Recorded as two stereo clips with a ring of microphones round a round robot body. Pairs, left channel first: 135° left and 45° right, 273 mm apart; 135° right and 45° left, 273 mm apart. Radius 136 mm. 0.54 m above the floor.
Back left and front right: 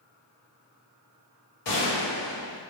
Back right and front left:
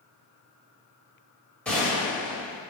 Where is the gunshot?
140° left, 1.4 m.